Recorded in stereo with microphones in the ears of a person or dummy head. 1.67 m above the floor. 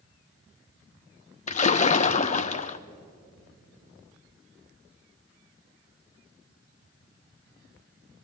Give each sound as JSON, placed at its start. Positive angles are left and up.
{"t": 1.5, "sound": "a splash", "side_deg": 35, "distance_m": 0.6}